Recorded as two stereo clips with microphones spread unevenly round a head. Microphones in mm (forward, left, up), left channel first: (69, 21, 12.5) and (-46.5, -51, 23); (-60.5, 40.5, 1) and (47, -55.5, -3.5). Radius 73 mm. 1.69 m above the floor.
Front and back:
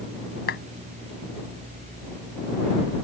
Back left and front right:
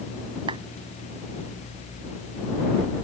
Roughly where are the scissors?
I don't hear scissors.